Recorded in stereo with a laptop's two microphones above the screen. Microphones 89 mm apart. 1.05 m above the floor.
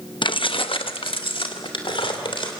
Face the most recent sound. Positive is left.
turn(degrees=75)  # may be behind; listen again after turning